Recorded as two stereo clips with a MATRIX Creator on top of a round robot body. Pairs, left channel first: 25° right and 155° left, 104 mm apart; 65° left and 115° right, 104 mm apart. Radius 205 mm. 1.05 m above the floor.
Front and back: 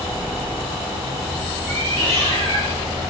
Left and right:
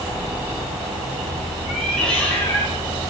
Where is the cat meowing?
155° left, 3.5 m; by 2.8 s 135° left, 4 m.